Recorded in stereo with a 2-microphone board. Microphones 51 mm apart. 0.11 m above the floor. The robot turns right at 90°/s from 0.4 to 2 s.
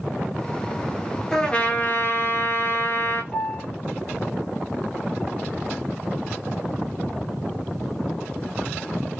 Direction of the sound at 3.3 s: 25° left (ahead or behind).